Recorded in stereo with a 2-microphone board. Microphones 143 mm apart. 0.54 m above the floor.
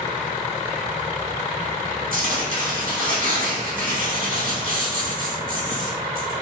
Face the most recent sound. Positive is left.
turn(degrees=-75)  # may be behind; listen again after turning